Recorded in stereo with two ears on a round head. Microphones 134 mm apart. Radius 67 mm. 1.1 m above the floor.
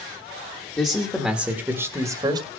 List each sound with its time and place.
0.8 s a man speaking: 10° left (ahead or behind), 1.4 m; by 2.5 s 35° right (ahead or behind), 1.5 m